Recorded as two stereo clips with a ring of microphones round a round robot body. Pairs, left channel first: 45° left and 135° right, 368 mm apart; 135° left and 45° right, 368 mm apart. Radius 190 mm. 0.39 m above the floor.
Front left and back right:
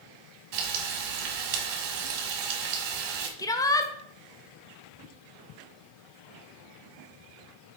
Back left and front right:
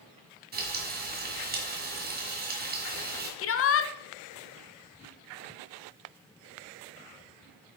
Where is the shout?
120° left, 0.9 m.